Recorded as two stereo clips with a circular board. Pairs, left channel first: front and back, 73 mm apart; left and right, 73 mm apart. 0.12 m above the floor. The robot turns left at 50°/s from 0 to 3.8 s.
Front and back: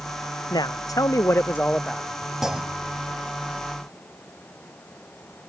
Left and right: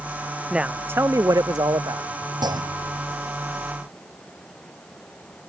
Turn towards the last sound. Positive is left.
turn(degrees=-165)